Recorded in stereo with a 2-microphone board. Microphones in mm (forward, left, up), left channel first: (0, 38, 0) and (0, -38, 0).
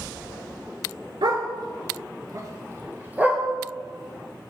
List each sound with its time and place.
1.2 s a dog barking: 75° right (ahead or behind), 1.1 m; by 3.4 s 15° right (ahead or behind), 1.5 m